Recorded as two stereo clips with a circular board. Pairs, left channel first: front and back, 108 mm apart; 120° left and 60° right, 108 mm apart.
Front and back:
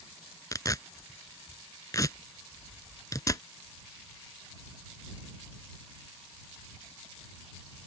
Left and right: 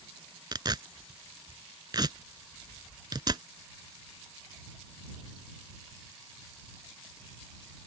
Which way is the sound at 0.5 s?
40° right.